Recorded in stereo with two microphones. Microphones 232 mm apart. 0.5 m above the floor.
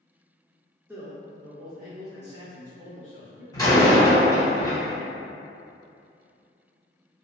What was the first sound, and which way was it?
A man speaking, 10° right (ahead or behind).